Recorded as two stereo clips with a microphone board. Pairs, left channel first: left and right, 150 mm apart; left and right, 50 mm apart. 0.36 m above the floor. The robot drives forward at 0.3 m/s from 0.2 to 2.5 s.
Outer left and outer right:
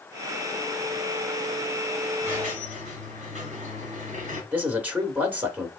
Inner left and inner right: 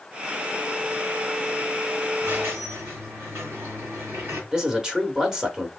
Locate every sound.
2.2 s a squeak: 55° right (ahead or behind), 2.5 m
4.5 s a man speaking: 10° right (ahead or behind), 0.8 m